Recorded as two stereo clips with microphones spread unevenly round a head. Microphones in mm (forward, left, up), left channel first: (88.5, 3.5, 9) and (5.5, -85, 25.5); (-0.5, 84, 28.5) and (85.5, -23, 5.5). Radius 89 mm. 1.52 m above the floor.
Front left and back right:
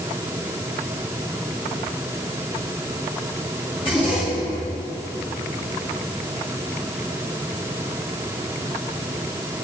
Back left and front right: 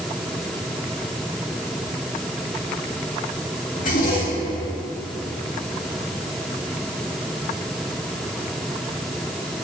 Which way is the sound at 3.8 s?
110° left.